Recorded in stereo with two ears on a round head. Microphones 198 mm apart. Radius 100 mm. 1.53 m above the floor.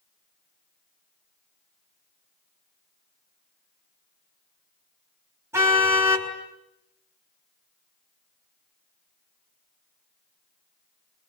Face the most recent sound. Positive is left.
turn(degrees=-15)  # may be behind; listen again after turning